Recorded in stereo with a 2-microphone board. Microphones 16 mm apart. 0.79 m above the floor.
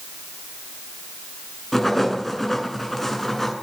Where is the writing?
15° left (ahead or behind), 8.5 m.